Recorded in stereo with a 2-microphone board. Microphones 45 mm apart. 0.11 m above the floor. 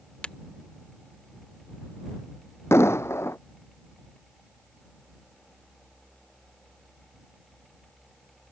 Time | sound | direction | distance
0.2 | breaking glass | 20° left (ahead or behind) | ?
2.7 | an explosion | 75° left (ahead or behind) | ?